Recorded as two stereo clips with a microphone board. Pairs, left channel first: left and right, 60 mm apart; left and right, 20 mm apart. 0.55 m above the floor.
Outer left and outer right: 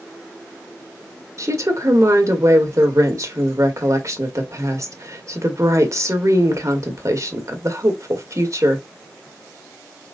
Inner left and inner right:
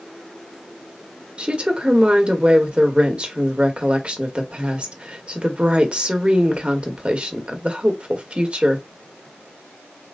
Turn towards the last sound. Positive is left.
turn(degrees=-65)  # may be behind; listen again after turning